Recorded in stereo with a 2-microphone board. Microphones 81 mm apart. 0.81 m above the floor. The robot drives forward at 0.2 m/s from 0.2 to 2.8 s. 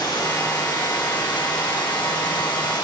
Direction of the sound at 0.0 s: 65° left (ahead or behind).